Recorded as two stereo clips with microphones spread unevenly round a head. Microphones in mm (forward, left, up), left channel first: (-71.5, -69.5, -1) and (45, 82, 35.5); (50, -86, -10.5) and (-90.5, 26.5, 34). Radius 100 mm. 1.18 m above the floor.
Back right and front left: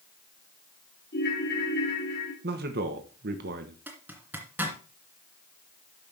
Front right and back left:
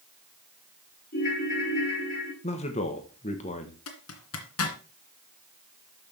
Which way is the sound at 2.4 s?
10° left.